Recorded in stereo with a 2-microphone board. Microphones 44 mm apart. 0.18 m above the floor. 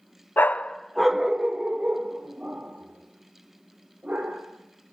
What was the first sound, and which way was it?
A dog barking, 50° left (ahead or behind).